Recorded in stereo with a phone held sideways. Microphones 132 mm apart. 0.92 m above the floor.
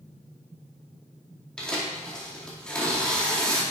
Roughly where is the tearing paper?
Centre.